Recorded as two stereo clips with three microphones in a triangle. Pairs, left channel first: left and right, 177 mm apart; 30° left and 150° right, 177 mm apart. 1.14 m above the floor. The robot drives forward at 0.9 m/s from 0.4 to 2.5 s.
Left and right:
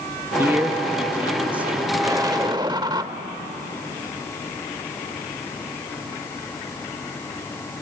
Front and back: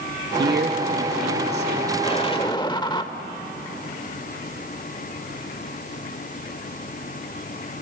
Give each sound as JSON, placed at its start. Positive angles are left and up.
{"t": 0.4, "sound": "a man speaking", "azimuth_deg": -165, "distance_m": 1.7}
{"t": 2.0, "sound": "an explosion", "azimuth_deg": -20, "distance_m": 1.6}